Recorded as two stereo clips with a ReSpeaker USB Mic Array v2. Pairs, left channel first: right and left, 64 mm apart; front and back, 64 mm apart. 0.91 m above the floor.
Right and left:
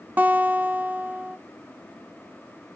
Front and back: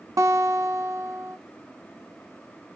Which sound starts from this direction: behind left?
A guitar, at 0.2 s.